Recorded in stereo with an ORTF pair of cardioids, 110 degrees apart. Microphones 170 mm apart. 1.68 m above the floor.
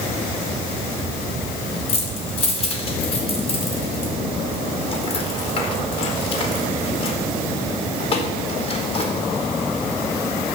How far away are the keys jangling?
About 4 m.